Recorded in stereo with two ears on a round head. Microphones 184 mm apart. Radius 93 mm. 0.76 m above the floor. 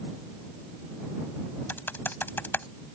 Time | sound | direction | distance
1.7 | typing on a keyboard | 10° left (ahead or behind) | ?